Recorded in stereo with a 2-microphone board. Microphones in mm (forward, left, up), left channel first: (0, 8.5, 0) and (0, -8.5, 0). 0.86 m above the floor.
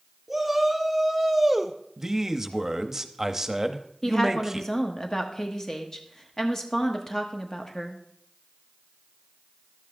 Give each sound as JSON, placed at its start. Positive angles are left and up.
{"t": 0.3, "sound": "a shout", "side_deg": 0, "distance_m": 2.0}
{"t": 2.0, "sound": "a man speaking", "side_deg": -10, "distance_m": 0.8}
{"t": 4.0, "sound": "a woman speaking", "side_deg": 25, "distance_m": 1.1}